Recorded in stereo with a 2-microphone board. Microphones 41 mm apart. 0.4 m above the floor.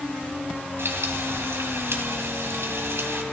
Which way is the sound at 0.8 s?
70° right (ahead or behind).